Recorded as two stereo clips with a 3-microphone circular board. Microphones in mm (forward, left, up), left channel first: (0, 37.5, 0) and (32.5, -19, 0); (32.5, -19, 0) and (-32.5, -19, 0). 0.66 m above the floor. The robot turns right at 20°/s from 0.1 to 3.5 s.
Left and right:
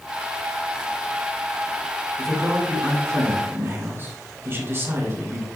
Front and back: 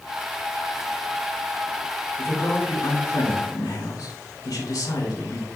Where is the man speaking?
35° right, 3 m; by 5.5 s 10° right, 3 m.